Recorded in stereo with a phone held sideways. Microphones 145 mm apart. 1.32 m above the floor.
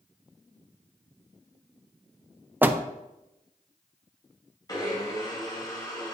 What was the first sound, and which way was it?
A door slam, 15° right (ahead or behind).